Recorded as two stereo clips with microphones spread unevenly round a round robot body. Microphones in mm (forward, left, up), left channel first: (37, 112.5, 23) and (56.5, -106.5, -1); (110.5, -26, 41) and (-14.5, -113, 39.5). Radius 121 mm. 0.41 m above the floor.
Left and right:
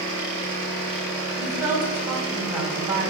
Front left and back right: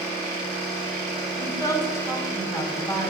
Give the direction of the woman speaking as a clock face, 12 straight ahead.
1 o'clock.